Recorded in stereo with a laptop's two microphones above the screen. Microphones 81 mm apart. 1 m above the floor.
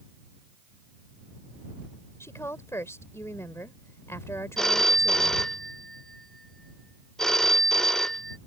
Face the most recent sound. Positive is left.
turn(degrees=5)  # may be behind; listen again after turning